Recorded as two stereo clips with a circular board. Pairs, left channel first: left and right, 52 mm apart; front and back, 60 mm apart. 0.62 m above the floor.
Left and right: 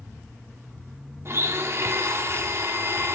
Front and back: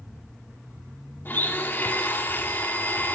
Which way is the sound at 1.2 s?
55° right.